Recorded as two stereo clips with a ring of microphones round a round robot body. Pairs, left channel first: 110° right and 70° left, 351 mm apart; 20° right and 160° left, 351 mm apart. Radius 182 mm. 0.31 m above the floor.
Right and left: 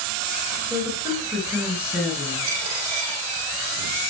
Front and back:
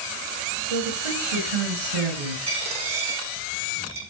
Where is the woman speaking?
150° left, 6.5 m; by 2.4 s 155° left, 5.5 m.